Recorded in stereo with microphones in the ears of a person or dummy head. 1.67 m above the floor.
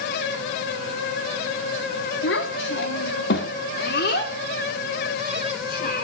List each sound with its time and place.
2.2 s a child speaking: 75° left (ahead or behind), 2.5 m; by 6.0 s 55° left (ahead or behind), 4.5 m